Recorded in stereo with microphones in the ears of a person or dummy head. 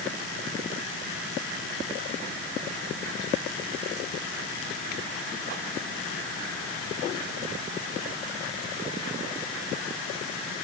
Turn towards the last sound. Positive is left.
No sound to turn to.